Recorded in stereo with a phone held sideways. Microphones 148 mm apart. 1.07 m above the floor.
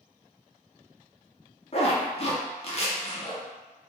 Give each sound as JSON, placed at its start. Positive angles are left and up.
{"t": 1.7, "sound": "a zipper", "side_deg": 45, "distance_m": 0.6}